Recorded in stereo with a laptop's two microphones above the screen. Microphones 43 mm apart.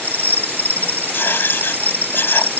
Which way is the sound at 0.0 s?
60° right (ahead or behind).